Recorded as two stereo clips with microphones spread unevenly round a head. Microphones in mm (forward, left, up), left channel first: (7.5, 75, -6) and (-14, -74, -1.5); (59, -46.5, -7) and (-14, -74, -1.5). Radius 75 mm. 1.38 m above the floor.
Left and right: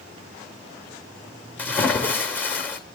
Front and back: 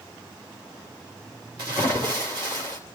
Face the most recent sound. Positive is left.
turn(degrees=160)